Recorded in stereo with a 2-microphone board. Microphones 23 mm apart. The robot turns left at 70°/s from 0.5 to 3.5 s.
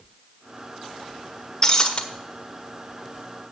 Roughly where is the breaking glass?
Left.